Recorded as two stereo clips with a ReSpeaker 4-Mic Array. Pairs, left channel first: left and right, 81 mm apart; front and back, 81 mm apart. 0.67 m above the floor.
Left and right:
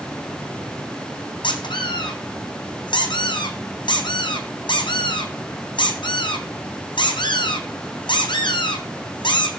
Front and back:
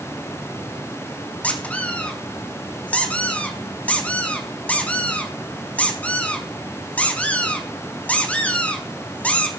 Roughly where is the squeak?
Left.